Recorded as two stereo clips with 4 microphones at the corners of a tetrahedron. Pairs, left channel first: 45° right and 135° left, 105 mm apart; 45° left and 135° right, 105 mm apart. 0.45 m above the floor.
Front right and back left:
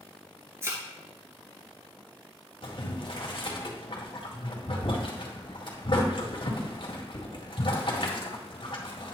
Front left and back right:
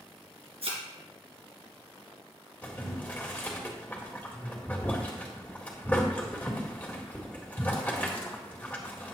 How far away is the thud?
About 2.5 m.